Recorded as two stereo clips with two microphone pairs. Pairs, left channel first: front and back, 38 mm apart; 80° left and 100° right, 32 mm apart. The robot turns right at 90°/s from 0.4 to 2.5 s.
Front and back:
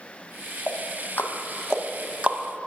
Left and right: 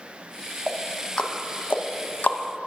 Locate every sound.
0.7 s ticking: 25° right, 0.6 m; by 2.4 s 130° left, 0.6 m